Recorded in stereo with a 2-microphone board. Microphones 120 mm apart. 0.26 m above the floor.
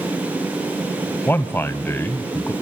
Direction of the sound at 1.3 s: 15° left (ahead or behind).